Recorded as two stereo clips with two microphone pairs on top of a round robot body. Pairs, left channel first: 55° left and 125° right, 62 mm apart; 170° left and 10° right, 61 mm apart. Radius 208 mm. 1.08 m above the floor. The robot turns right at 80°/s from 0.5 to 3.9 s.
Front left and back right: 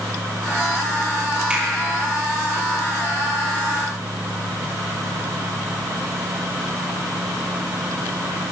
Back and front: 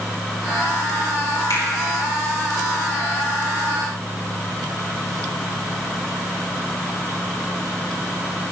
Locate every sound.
1.5 s a finger snap: 160° left, 5 m; by 1.6 s 170° left, 5 m